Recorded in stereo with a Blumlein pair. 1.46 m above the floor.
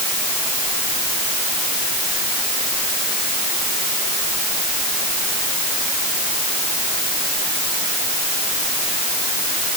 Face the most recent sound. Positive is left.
No sound to turn to.